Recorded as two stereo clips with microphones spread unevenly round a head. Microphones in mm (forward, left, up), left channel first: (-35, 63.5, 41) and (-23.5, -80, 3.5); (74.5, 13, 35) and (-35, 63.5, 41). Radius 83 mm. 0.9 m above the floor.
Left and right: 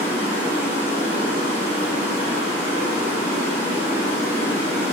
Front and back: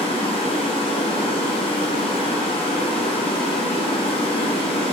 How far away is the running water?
About 0.9 m.